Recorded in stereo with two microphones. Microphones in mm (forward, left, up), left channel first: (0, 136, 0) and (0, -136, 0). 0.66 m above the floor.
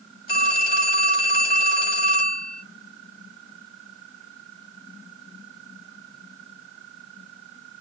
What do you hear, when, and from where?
0.3 s a phone ringing: 35° left (ahead or behind), 2 m